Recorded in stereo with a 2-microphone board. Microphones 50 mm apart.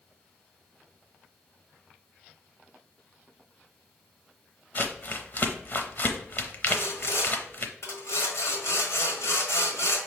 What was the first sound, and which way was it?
Crumpling, 45° left (ahead or behind).